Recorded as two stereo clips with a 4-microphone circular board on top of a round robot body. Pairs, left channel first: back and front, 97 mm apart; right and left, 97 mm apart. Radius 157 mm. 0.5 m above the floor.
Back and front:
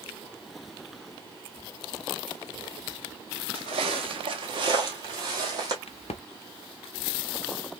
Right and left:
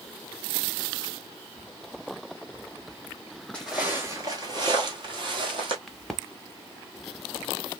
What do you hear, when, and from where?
3.5 s footsteps: 15° right, 0.5 m; by 5.8 s 50° left, 1.7 m
5.9 s a crack: straight behind, 0.7 m